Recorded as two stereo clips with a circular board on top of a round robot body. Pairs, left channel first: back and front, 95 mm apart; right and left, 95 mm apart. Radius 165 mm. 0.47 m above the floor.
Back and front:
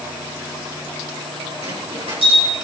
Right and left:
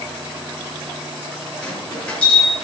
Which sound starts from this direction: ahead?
A bell, at 1.6 s.